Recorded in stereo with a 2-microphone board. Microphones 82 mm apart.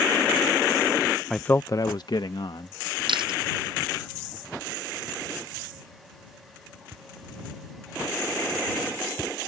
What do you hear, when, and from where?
1.3 s a man speaking: 5° left (ahead or behind); by 2.8 s 75° left (ahead or behind)
3.1 s chewing: 80° right